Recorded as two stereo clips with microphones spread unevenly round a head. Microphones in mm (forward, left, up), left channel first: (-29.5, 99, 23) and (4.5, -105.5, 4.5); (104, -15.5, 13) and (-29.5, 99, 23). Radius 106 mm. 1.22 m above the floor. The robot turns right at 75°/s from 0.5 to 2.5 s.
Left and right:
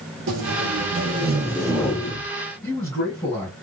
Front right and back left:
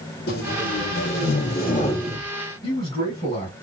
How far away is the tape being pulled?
About 1.6 m.